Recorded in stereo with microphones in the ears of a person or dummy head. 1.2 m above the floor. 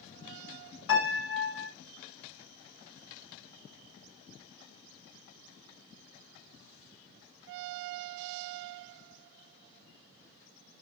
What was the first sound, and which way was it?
A piano, 80° left.